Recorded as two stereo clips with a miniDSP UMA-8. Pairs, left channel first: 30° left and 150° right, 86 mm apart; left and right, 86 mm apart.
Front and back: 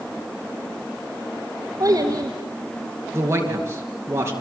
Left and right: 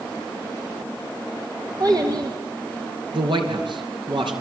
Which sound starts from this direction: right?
A man speaking, at 3.1 s.